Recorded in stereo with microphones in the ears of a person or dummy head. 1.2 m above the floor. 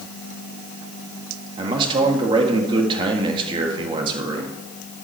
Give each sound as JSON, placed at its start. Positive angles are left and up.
{"t": 1.6, "sound": "a man speaking", "side_deg": -25, "distance_m": 1.6}